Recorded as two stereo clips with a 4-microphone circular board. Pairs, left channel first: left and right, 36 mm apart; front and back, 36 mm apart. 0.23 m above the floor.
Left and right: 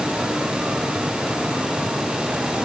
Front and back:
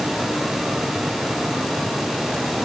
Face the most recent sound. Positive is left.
No sound to turn to.